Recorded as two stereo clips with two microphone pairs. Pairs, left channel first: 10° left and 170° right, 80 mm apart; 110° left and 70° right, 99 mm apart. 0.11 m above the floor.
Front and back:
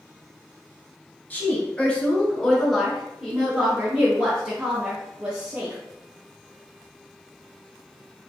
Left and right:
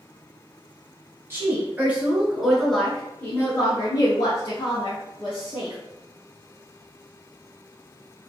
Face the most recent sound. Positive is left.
turn(degrees=135)